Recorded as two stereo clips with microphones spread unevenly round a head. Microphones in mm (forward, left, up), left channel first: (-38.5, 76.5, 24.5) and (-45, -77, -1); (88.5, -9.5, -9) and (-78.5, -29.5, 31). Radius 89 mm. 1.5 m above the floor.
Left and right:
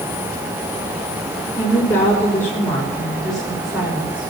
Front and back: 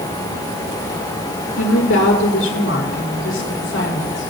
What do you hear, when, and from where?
1.6 s a woman speaking: 15° left, 6 m; by 4.3 s 10° right, 5.5 m